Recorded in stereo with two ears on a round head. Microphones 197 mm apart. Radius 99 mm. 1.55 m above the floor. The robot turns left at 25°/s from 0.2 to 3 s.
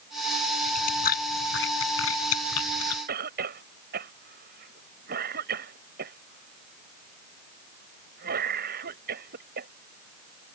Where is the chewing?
35° left (ahead or behind); by 3.0 s 85° left.